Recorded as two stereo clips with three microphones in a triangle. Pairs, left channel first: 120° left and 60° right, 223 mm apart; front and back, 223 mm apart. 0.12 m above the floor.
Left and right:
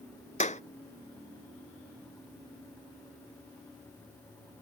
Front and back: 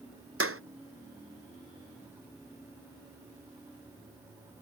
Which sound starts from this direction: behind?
A clap, at 0.4 s.